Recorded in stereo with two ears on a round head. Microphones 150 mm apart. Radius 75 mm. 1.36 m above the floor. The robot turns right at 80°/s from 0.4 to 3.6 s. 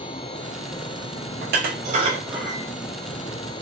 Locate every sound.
1.4 s dishes clattering: 60° right (ahead or behind), 0.7 m; by 2.6 s 10° left (ahead or behind), 0.7 m